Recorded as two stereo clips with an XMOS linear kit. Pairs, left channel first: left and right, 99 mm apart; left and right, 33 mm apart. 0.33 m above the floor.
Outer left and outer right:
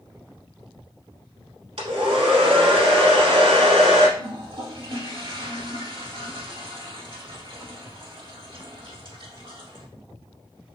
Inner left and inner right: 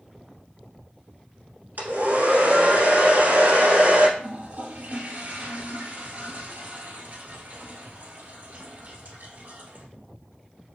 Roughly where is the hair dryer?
Right.